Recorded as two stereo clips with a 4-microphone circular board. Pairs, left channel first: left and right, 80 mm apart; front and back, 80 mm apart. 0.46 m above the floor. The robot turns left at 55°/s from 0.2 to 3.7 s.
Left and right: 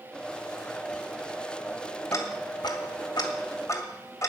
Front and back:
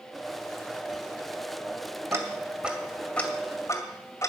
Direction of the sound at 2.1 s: 135° left.